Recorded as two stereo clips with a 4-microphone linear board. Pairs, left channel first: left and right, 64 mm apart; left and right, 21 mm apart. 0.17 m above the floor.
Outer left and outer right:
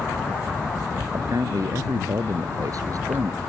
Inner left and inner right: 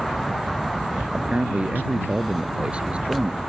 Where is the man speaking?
65° right (ahead or behind).